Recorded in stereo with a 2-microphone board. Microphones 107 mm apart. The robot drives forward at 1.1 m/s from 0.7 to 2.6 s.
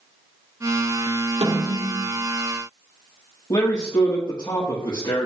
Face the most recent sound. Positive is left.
turn(degrees=45)  # may be behind; listen again after turning